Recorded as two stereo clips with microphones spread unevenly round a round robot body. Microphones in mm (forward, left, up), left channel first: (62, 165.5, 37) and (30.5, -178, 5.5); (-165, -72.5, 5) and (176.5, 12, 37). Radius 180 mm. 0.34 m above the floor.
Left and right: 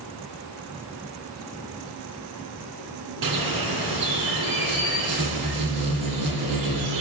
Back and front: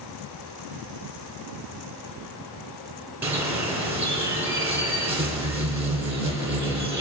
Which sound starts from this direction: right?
A bird, at 3.2 s.